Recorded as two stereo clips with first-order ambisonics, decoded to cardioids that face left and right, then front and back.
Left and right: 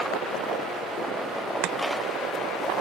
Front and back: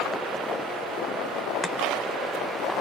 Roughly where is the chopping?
Right.